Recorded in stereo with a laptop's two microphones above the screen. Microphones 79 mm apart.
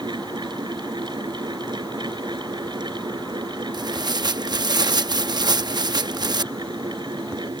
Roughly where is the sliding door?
I don't hear a sliding door.